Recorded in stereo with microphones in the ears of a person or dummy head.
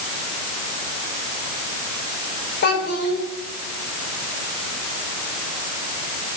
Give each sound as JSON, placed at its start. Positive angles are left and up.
{"t": 2.6, "sound": "a child speaking", "side_deg": 65, "distance_m": 3.0}